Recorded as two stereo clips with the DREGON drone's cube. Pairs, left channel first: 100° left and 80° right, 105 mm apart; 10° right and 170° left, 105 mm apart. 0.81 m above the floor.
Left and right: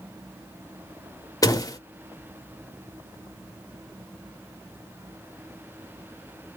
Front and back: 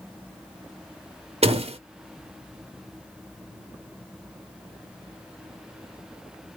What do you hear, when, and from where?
1.4 s a door slam: 155° left, 0.8 m